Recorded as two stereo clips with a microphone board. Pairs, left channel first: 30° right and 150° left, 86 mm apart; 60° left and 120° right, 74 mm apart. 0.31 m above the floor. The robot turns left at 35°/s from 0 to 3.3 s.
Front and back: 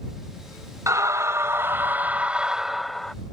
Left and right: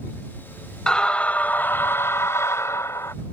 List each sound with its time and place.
0.9 s a scream: 130° left; by 3.1 s 50° left